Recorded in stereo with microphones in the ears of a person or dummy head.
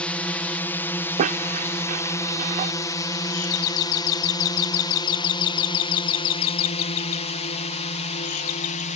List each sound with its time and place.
0.0 s a drone: 5° left (ahead or behind); by 9.0 s 35° left (ahead or behind)
1.2 s a squeak: 45° right (ahead or behind)
3.3 s a doorbell: 85° left